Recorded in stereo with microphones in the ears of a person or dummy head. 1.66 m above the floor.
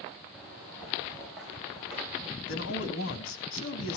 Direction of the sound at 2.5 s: 80° left.